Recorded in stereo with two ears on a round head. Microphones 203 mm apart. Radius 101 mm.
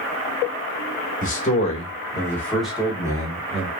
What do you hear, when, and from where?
1.2 s a man speaking: 40° left (ahead or behind), 1.3 m; by 3.7 s 30° right (ahead or behind), 1.1 m